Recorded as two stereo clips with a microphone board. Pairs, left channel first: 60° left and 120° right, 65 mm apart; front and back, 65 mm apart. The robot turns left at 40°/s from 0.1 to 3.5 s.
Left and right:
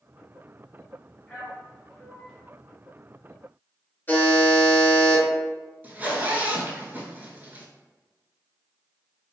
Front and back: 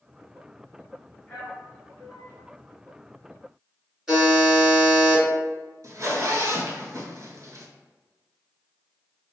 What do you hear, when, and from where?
1.3 s a man speaking: 10° left, 1.7 m; by 2.3 s 35° right, 1.7 m
4.1 s a buzzer: 100° left, 2.0 m
5.8 s a zipper: straight behind, 0.5 m